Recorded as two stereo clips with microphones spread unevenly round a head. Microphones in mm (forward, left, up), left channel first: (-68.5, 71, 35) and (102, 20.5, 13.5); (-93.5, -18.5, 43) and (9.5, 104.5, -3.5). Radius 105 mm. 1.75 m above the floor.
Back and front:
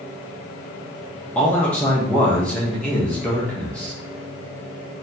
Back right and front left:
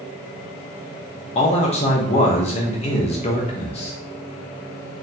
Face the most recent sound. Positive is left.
turn(degrees=-120)